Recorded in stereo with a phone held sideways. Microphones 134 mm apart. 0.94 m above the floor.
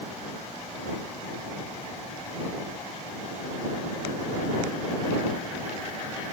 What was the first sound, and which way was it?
Only background noise.